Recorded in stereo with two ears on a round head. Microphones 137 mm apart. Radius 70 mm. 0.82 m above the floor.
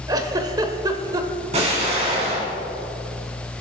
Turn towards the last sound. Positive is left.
turn(degrees=-45)  # may be behind; listen again after turning